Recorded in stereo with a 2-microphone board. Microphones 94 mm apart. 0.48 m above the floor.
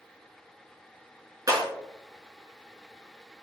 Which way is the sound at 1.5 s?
40° right (ahead or behind).